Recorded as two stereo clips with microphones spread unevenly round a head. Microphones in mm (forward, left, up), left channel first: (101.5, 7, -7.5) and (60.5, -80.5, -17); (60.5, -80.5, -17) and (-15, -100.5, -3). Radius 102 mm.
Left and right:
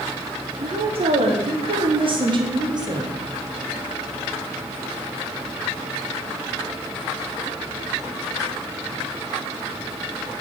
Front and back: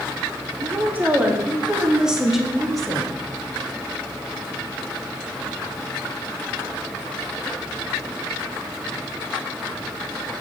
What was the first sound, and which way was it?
A woman speaking, 100° right.